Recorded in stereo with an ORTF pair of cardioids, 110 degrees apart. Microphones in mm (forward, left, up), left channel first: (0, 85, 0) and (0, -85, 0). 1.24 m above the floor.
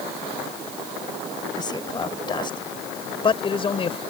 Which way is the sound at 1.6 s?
25° left.